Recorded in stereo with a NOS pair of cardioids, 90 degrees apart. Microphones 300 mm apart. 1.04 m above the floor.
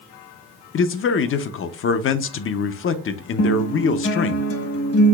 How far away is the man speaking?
About 0.7 m.